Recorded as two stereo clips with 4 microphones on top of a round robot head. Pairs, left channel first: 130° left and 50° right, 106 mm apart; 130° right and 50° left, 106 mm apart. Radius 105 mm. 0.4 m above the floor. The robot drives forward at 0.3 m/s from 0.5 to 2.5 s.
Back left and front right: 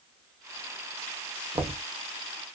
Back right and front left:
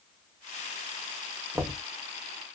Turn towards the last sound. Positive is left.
turn(degrees=-50)